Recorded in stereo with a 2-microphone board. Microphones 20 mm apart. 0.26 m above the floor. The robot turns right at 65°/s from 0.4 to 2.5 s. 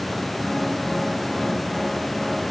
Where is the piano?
I don't hear a piano.